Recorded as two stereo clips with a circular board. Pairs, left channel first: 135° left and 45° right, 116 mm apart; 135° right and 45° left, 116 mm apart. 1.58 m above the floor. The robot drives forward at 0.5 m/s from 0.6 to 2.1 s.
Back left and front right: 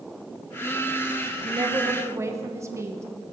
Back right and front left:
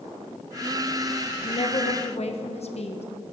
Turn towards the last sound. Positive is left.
turn(degrees=-110)